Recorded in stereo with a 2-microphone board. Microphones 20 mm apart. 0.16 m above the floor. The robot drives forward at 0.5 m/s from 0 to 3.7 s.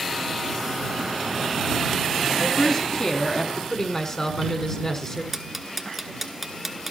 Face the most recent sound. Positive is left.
turn(degrees=-10)  # may be behind; listen again after turning